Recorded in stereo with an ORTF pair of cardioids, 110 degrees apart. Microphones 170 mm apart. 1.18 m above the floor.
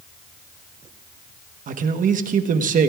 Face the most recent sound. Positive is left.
turn(degrees=-50)